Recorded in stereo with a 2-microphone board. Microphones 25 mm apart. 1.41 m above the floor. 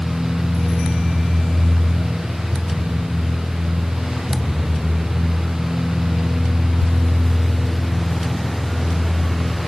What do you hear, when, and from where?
Only background noise.